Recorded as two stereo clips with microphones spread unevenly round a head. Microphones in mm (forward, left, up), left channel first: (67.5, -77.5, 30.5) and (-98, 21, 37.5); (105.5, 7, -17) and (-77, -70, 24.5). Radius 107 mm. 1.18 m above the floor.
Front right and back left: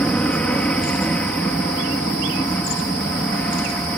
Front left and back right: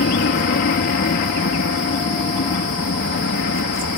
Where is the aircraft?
55° left.